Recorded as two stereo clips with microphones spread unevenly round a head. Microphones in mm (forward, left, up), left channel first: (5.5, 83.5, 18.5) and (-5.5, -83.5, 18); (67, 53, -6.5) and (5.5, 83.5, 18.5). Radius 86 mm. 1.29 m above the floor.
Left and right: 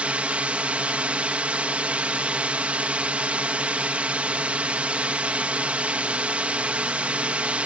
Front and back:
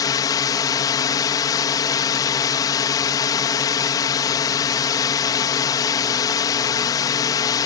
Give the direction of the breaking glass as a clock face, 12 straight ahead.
No breaking glass in this recording.